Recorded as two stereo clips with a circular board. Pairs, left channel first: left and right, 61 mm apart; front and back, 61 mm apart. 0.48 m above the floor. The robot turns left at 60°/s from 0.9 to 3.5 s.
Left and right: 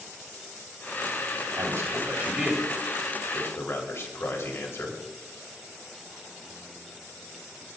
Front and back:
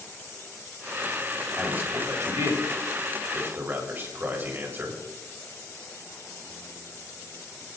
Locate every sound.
1.6 s a man speaking: 115° right, 2.5 m; by 5.0 s 130° left, 2.5 m